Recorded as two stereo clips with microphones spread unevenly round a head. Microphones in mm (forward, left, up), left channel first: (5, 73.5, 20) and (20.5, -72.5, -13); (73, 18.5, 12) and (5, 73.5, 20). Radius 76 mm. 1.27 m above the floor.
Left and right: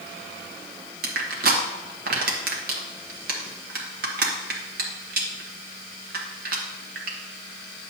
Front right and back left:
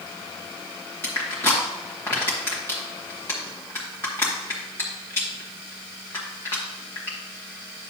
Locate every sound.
1.0 s crushing: 115° right, 1.3 m